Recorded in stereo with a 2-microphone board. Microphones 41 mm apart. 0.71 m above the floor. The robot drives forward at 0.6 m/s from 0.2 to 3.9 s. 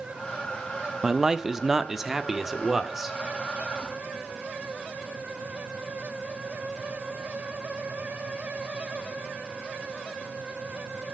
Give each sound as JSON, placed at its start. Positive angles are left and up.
{"t": 1.0, "sound": "a man speaking", "side_deg": -15, "distance_m": 0.7}